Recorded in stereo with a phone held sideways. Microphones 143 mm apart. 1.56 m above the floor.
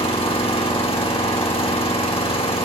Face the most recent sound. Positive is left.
turn(degrees=40)  # may be behind; listen again after turning